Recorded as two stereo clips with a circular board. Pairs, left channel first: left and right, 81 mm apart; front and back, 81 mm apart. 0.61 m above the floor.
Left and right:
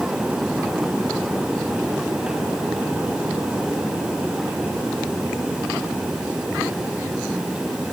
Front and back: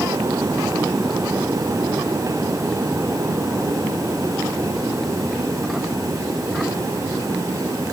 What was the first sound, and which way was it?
Only background noise.